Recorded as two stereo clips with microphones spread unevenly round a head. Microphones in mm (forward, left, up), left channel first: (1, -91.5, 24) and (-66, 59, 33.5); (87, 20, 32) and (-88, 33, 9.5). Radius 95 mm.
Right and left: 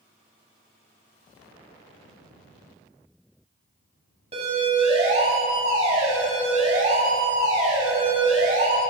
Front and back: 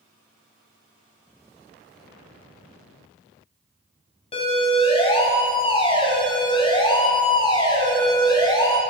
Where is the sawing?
I don't hear sawing.